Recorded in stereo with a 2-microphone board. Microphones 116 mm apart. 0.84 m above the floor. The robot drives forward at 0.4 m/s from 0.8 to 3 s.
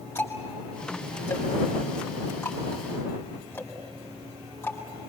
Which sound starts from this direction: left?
Ticking, at 0.1 s.